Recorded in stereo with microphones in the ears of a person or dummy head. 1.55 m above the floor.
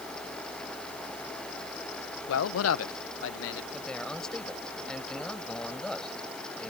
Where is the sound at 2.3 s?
80° left; by 3.6 s 60° left (ahead or behind).